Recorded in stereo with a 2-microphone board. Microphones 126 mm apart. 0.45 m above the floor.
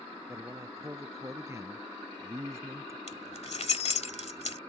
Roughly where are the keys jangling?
Left.